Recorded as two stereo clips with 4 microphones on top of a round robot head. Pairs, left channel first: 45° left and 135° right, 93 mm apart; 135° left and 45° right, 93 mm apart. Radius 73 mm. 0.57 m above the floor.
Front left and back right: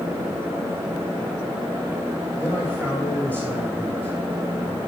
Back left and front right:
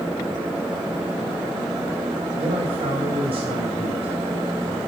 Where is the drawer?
I don't hear a drawer.